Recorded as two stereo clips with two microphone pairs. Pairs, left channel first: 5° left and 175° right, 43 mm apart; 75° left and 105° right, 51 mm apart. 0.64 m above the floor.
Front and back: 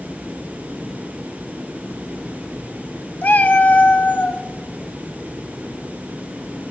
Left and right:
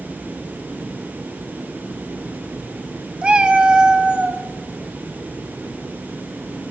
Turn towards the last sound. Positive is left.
turn(degrees=-35)